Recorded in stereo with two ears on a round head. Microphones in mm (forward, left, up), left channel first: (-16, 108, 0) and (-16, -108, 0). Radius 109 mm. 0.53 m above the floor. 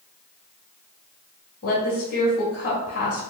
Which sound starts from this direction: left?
A woman speaking, at 1.6 s.